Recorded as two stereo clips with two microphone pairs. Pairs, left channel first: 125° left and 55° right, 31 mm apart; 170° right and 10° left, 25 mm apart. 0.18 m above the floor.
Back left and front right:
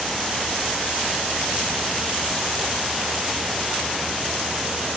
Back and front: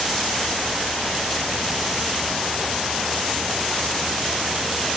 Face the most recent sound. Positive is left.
No sound to turn to.